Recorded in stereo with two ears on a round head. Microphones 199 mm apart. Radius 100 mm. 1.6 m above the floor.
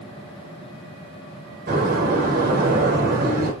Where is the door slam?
45° right (ahead or behind), 6 m.